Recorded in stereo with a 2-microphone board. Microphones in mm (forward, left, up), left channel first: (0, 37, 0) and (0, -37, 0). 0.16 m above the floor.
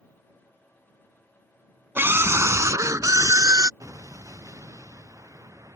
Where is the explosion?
45° right (ahead or behind).